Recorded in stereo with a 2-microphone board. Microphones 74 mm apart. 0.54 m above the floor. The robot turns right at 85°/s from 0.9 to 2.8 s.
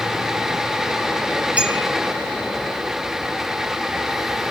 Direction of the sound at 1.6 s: 20° right (ahead or behind).